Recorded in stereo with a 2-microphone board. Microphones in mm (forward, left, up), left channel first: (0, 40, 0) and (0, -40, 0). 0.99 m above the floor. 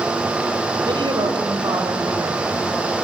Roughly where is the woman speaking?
Right.